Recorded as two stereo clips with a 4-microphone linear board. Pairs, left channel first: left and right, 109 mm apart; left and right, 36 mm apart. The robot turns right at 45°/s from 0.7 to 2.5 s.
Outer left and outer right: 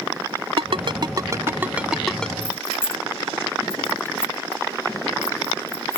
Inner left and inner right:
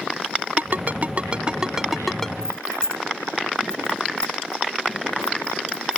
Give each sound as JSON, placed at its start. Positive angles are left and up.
{"t": 0.6, "sound": "a ringtone", "side_deg": -60}
{"t": 2.4, "sound": "keys jangling", "side_deg": 20}